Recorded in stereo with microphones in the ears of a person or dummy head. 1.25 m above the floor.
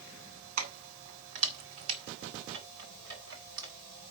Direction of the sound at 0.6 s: 40° right (ahead or behind).